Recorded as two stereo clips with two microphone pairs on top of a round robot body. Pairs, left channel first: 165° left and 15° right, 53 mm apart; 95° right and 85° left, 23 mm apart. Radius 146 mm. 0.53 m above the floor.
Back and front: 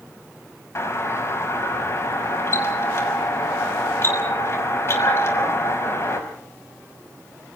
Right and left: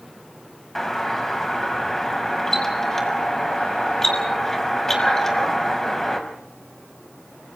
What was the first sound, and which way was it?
A doorbell, 165° right.